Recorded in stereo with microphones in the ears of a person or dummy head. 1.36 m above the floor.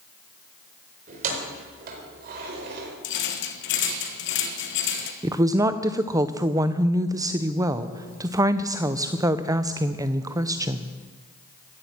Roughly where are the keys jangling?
Right.